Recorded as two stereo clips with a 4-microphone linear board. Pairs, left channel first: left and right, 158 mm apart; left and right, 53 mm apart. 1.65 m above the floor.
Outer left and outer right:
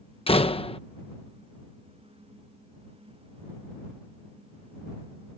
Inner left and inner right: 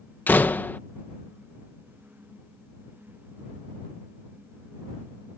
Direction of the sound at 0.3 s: 35° left (ahead or behind).